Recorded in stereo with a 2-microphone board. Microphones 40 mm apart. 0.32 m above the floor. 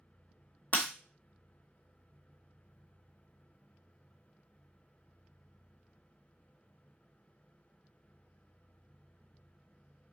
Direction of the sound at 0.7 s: 45° left (ahead or behind).